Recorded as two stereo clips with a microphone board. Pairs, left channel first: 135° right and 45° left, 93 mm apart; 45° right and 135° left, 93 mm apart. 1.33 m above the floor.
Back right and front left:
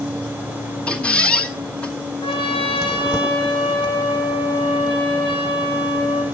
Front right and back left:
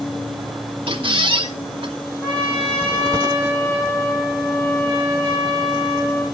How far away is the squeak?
About 1.7 m.